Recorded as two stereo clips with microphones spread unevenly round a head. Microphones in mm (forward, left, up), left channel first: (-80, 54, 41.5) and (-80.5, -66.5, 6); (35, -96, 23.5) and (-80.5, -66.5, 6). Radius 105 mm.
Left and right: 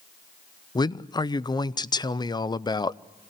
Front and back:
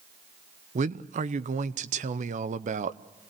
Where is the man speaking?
150° left, 0.7 m.